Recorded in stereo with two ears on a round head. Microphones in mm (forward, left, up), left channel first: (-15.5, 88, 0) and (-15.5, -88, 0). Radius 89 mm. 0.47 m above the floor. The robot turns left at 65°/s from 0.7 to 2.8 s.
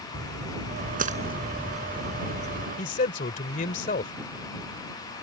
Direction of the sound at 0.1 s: 70° right (ahead or behind).